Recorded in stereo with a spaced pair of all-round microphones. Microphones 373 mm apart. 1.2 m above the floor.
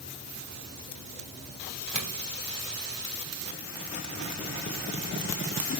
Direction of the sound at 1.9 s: 55° right (ahead or behind).